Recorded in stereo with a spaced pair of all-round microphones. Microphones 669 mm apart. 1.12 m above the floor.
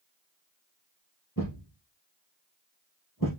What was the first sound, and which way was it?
A thud, 30° left (ahead or behind).